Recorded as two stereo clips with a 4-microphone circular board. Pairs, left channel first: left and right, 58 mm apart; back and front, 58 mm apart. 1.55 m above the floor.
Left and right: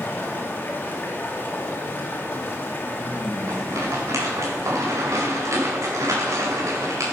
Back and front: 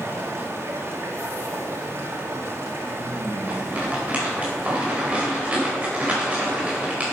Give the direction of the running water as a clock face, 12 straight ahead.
11 o'clock.